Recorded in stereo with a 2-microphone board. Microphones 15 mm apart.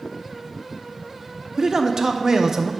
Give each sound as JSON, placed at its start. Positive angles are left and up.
{"t": 1.6, "sound": "a man speaking", "side_deg": -30, "distance_m": 0.5}